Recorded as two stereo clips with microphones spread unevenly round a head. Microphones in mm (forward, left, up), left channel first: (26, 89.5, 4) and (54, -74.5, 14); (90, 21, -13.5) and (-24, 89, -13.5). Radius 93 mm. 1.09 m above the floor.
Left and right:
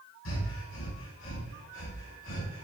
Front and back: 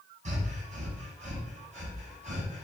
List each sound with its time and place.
0.2 s breathing: 115° left, 5 m